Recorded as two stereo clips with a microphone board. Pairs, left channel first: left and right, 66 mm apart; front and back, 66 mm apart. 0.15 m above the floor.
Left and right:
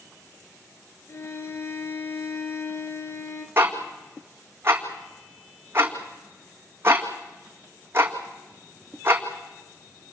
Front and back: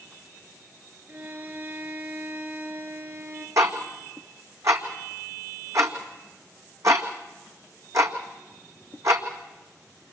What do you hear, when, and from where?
1.1 s a violin: 125° left, 3 m
3.6 s ticking: 145° right, 1.9 m